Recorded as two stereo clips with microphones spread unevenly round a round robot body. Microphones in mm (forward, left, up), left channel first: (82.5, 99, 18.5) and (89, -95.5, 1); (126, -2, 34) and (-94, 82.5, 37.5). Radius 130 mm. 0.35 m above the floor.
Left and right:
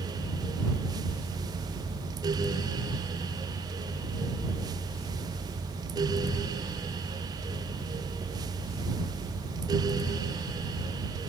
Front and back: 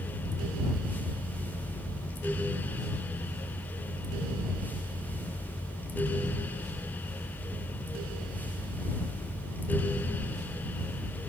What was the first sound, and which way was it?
Only background noise.